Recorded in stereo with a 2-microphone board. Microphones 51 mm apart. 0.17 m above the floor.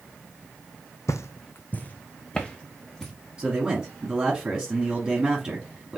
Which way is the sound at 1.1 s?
80° left.